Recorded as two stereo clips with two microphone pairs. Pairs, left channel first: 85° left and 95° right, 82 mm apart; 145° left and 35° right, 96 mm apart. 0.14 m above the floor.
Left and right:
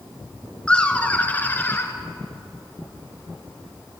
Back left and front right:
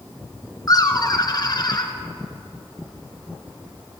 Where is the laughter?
155° left, 2 m; by 1.9 s 135° left, 2.5 m.